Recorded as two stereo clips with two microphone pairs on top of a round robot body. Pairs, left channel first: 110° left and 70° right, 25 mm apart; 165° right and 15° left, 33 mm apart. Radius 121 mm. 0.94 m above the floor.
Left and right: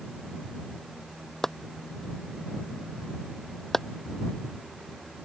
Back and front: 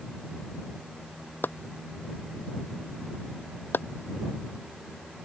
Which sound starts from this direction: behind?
Chopping, at 1.4 s.